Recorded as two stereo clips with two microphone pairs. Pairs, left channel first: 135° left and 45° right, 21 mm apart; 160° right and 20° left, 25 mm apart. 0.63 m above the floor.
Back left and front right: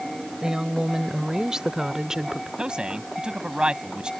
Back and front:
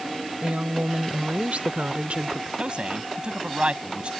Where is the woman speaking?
5° left; by 2.5 s 10° left.